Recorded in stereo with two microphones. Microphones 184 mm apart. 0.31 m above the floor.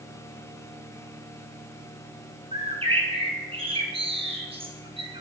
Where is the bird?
30° right (ahead or behind), 2 m.